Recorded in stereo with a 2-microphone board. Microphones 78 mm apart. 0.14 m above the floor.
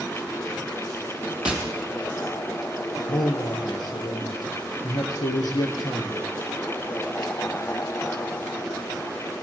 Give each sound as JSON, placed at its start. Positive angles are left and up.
{"t": 1.4, "sound": "tapping", "side_deg": -10, "distance_m": 3.0}
{"t": 3.1, "sound": "a man speaking", "side_deg": 65, "distance_m": 3.0}